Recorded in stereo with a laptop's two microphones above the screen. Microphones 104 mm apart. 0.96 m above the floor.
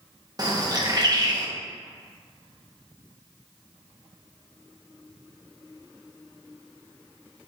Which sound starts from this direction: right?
A bird, at 0.4 s.